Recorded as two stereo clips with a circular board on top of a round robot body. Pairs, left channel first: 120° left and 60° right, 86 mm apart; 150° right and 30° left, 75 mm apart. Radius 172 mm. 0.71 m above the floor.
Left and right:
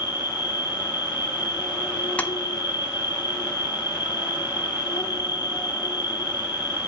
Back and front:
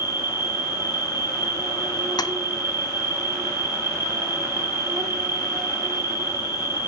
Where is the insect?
85° left, 3.5 m.